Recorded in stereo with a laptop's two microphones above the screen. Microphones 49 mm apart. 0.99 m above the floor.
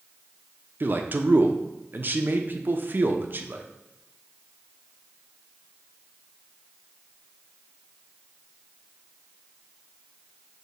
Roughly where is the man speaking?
Right.